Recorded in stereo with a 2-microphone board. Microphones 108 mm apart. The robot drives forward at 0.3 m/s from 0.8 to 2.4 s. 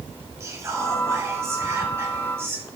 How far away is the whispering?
About 2 m.